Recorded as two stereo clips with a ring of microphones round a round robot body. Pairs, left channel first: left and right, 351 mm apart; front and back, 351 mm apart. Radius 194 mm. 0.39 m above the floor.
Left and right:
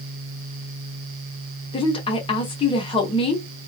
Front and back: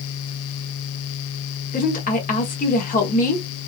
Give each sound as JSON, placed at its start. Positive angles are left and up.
{"t": 1.7, "sound": "a woman speaking", "azimuth_deg": 35, "distance_m": 0.9}